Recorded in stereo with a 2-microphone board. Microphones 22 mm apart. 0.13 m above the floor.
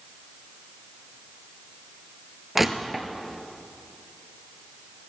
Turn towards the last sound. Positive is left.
turn(degrees=-15)  # may be behind; listen again after turning